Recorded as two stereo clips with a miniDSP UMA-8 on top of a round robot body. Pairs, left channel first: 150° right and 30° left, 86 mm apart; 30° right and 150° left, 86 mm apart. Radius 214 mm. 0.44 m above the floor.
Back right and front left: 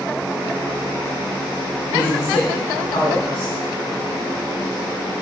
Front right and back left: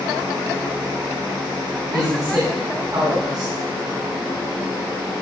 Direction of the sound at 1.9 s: 165° right.